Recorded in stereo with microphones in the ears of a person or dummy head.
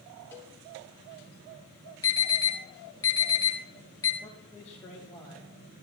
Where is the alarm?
20° left (ahead or behind), 2.5 m.